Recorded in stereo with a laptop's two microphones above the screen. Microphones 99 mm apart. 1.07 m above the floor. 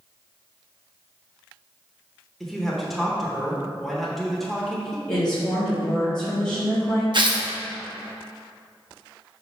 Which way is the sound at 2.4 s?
Centre (ahead or behind).